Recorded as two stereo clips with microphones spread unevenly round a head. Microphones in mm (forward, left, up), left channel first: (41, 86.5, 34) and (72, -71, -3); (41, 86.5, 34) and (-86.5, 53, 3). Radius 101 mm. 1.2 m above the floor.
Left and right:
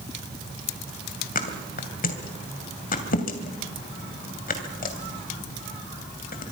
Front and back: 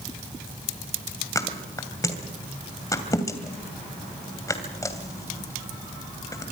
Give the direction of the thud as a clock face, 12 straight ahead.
9 o'clock.